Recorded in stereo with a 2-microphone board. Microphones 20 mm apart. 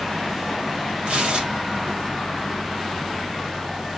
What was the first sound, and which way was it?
Tearing paper, 70° right (ahead or behind).